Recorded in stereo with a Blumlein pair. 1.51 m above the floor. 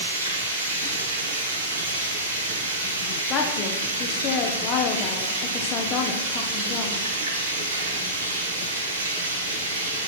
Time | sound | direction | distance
0.0 | running water | 70° right | 3 m
3.3 | a woman speaking | 30° left | 0.8 m